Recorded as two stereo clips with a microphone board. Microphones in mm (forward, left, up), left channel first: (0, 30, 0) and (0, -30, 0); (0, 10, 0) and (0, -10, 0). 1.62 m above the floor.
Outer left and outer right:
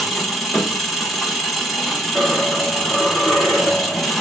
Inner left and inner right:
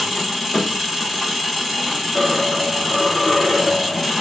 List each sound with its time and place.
0.0 s an engine running: centre (ahead or behind), 0.9 m
2.1 s a dropped coin: 10° left (ahead or behind), 1.3 m